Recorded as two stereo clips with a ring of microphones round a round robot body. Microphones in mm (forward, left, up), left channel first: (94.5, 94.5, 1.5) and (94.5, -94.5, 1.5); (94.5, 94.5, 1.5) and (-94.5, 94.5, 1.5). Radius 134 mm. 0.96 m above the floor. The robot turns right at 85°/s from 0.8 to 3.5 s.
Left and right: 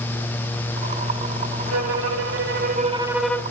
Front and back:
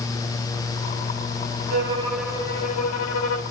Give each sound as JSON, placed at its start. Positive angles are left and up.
{"t": 1.7, "sound": "a violin", "azimuth_deg": -130, "distance_m": 1.9}